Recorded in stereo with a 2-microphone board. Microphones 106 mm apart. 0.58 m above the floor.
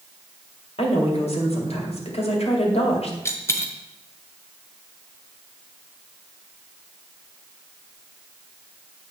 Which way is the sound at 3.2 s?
25° left (ahead or behind).